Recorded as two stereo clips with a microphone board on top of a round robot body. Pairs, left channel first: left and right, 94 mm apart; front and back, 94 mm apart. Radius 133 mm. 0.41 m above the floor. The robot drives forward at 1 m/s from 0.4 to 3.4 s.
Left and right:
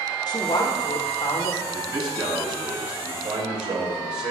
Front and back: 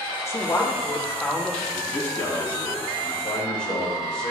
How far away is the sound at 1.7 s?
About 5.5 m.